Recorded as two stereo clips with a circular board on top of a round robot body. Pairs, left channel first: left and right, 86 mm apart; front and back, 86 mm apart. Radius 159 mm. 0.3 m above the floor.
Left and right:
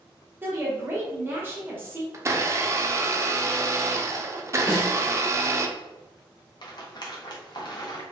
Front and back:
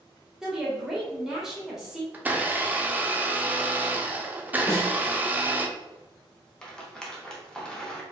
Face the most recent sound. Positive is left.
turn(degrees=80)